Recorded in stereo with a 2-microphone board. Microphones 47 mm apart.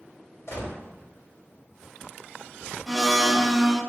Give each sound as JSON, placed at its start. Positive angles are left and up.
{"t": 0.5, "sound": "a gunshot", "side_deg": 75, "distance_m": 3.0}
{"t": 2.9, "sound": "a blender", "side_deg": 0, "distance_m": 0.8}